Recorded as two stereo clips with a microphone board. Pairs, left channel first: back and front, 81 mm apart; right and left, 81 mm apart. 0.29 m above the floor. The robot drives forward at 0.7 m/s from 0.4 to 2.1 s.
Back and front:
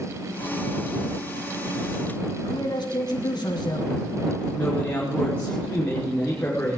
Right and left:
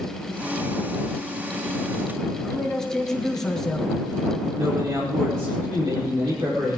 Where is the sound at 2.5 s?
175° right, 3 m.